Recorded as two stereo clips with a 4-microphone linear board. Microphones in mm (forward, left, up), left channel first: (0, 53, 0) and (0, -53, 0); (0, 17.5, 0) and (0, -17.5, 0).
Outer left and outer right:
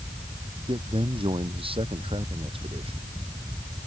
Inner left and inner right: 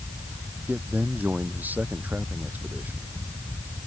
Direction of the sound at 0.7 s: 55° right (ahead or behind).